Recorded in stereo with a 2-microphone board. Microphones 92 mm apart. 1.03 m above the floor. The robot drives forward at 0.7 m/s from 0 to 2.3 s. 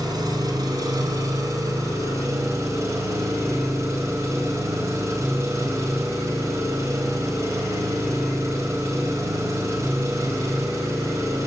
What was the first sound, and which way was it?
An engine running, 45° right (ahead or behind).